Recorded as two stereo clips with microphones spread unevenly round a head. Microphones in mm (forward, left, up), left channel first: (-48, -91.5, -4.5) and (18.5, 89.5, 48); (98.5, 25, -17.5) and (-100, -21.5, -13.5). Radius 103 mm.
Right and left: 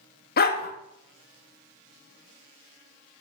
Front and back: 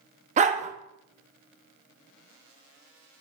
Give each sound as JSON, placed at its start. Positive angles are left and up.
{"t": 0.4, "sound": "a dog barking", "azimuth_deg": -145, "distance_m": 0.9}